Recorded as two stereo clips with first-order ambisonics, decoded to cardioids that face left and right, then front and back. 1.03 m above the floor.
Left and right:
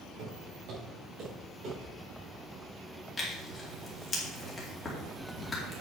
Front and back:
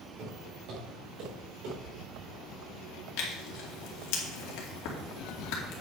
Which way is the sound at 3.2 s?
15° left.